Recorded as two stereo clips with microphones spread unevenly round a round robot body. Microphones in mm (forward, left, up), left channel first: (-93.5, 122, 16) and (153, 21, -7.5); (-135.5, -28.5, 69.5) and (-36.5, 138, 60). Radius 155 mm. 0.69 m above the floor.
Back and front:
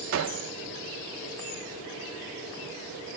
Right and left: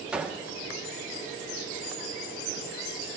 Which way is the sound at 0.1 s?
25° right.